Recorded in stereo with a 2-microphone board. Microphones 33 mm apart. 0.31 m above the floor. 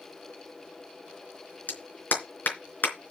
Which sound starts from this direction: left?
A clap, at 1.7 s.